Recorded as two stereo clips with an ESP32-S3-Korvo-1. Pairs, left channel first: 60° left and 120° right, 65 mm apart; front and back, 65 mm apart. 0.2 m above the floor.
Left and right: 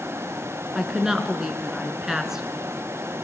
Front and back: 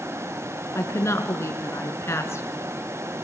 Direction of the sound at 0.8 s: 40° right.